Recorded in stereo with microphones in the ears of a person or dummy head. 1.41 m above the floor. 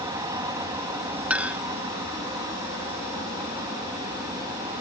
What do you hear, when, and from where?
0.0 s an aircraft: 15° right (ahead or behind)
1.3 s a clink: 5° right (ahead or behind)